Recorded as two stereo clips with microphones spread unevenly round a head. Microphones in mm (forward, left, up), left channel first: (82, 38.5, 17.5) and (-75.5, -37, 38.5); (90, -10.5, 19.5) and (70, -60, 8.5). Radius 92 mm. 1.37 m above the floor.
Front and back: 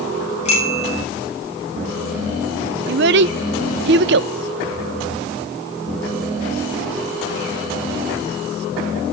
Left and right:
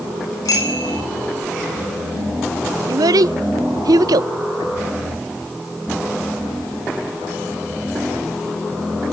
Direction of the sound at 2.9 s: 125° right.